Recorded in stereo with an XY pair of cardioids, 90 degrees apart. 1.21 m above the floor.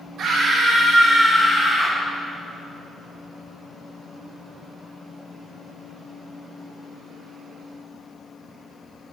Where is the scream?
65° right, 1.7 m; by 2.0 s 15° left, 2.5 m.